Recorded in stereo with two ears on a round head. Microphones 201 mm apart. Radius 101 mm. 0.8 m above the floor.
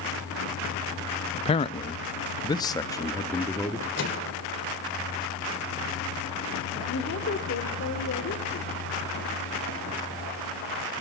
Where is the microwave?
60° left (ahead or behind), 2.5 m.